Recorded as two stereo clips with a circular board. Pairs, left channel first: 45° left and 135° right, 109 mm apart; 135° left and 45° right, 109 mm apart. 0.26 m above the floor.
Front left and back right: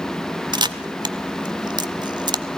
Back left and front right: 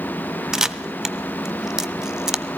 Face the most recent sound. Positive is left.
turn(degrees=-125)